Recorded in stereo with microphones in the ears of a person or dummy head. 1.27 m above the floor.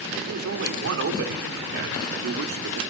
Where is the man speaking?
80° right, 3.5 m; by 2.8 s 75° right (ahead or behind), 2.5 m.